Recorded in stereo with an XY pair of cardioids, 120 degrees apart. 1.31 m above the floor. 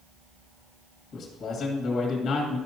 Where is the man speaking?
60° left, 1.7 m.